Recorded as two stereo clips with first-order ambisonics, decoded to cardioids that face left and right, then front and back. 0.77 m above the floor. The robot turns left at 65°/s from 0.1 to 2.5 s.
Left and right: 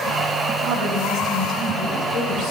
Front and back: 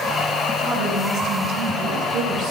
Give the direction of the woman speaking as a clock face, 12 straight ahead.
4 o'clock.